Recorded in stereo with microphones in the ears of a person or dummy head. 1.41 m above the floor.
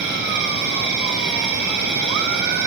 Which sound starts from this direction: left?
An insect, at 0.0 s.